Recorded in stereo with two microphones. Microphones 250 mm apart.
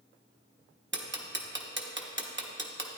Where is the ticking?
45° right (ahead or behind), 0.9 m.